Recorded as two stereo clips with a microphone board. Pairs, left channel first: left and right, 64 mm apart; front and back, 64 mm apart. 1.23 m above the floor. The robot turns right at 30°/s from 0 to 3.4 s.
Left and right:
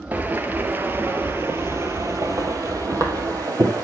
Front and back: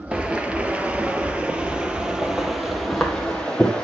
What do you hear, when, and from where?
0.1 s footsteps: 120° right, 1.3 m; by 3.8 s 75° right, 2.5 m